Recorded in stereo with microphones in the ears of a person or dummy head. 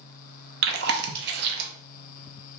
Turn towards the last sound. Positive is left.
turn(degrees=-50)  # may be behind; listen again after turning